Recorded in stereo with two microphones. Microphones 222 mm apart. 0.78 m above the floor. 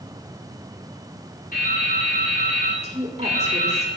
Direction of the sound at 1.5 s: 40° left (ahead or behind).